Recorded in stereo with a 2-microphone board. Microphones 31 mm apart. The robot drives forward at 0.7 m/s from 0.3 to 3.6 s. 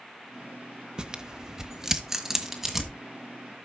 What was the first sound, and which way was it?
Tearing paper, 25° right (ahead or behind).